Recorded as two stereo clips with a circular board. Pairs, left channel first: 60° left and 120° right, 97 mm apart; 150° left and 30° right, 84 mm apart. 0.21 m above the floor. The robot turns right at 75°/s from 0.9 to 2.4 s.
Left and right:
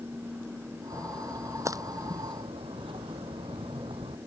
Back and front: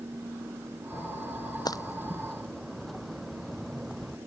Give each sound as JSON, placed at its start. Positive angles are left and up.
{"t": 0.9, "sound": "a splash", "azimuth_deg": 130}